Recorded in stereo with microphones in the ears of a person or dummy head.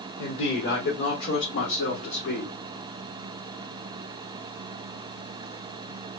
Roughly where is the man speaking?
Left.